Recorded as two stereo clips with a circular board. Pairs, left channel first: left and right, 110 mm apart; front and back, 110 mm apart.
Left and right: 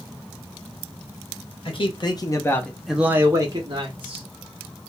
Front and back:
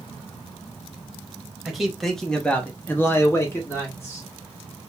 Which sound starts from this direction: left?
A man speaking, at 1.6 s.